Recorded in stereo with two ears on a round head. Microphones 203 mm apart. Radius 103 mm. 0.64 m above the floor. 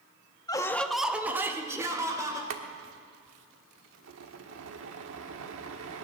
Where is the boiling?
65° right (ahead or behind), 1.2 m.